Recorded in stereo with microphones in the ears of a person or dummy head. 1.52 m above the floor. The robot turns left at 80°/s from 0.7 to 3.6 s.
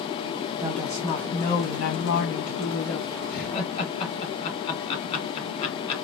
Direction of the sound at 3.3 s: 55° left (ahead or behind).